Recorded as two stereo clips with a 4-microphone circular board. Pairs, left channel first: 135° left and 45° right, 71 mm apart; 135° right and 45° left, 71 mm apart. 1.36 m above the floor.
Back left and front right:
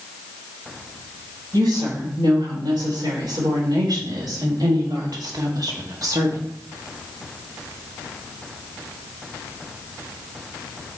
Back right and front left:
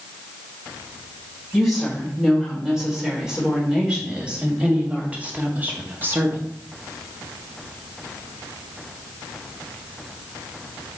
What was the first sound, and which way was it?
A woman speaking, 40° right.